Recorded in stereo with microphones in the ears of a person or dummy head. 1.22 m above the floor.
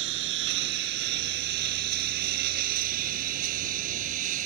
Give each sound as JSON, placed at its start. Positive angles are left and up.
{"t": 0.0, "sound": "a lawn mower", "side_deg": -70}